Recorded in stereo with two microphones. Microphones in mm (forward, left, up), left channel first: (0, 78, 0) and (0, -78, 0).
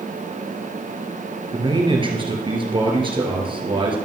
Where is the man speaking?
30° right (ahead or behind), 2.5 m.